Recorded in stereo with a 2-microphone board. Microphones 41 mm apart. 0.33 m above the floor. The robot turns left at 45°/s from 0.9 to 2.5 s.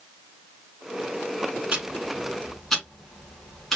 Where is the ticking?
25° right (ahead or behind), 1.0 m; by 3.8 s 10° left (ahead or behind), 1.0 m.